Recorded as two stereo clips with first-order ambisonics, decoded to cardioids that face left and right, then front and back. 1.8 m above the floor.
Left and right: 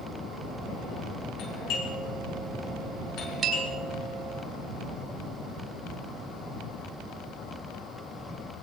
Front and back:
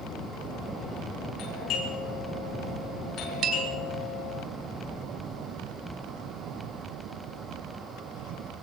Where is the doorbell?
50° left, 9 m.